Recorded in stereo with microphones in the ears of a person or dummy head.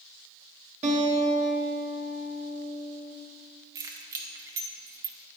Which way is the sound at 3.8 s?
20° right (ahead or behind).